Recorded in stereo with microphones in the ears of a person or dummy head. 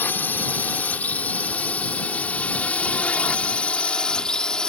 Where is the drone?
15° left (ahead or behind); by 4.7 s 5° left (ahead or behind).